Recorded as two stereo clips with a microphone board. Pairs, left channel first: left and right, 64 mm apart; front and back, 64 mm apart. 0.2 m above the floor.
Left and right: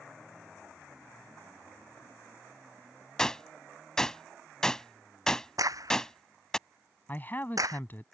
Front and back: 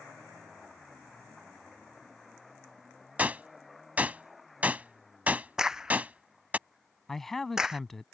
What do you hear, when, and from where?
3.2 s a gunshot: 155° left
5.6 s a crack: 100° right
7.1 s a man speaking: 80° left